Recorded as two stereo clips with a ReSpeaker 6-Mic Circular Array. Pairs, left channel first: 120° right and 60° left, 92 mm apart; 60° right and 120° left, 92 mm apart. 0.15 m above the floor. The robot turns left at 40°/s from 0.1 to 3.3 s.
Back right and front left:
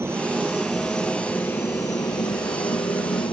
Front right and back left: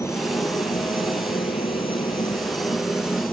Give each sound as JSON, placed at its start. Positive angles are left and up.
{"t": 0.0, "sound": "a helicopter", "azimuth_deg": -5}